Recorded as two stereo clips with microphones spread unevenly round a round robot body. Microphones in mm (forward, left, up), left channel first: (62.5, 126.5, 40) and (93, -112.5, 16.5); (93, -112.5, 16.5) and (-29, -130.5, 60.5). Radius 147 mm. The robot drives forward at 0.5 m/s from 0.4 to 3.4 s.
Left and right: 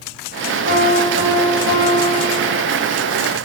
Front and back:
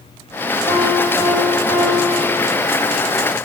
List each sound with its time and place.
0.7 s a piano: 75° left, 3.5 m; by 2.6 s 90° left, 3 m